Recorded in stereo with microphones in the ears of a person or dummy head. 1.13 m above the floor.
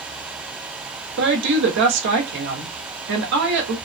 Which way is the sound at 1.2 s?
60° right (ahead or behind).